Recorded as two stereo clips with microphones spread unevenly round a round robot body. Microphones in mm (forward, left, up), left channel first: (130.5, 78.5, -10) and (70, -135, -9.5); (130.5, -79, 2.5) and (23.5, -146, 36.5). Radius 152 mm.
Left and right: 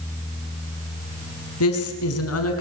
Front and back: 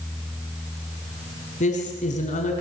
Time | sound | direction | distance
1.6 | a woman speaking | 70° left | 4.5 m